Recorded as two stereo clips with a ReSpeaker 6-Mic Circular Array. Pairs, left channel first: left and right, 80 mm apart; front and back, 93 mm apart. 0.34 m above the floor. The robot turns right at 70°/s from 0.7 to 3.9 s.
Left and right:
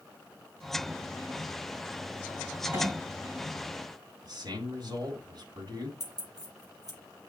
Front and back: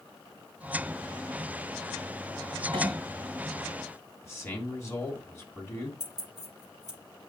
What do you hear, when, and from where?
2.7 s a clink: 150° right, 3 m; by 3.0 s 135° right, 3 m
4.2 s a man speaking: 60° right, 2.5 m
6.0 s keys jangling: 45° right, 7 m